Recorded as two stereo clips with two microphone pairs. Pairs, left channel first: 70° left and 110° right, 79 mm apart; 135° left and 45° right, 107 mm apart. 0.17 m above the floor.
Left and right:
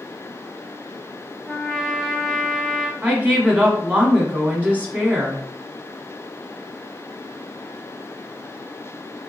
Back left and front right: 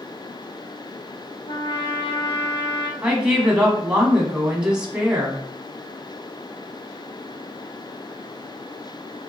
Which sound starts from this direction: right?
A woman speaking, at 3.0 s.